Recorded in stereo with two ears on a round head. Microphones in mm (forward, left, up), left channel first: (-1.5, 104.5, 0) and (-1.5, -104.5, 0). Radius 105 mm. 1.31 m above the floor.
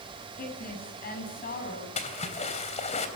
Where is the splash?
30° left (ahead or behind), 3.5 m.